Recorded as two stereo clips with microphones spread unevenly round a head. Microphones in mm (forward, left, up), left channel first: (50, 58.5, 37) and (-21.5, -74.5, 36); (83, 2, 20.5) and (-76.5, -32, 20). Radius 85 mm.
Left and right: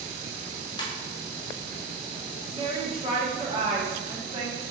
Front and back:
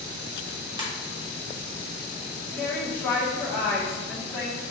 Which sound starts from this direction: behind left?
A ringtone, at 0.8 s.